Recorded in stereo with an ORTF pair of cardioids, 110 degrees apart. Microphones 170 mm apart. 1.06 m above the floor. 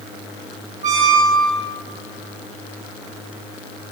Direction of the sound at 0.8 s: 45° right.